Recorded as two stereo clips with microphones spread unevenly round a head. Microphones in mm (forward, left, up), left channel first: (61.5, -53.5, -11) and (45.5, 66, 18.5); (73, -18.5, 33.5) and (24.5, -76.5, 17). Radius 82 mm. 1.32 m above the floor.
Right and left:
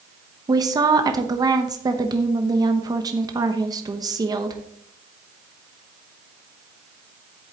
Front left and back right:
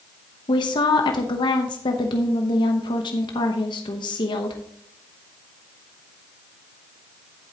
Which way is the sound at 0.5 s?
45° left.